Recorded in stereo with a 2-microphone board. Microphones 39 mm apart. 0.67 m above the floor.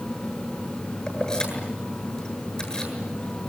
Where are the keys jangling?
20° left (ahead or behind), 8 m.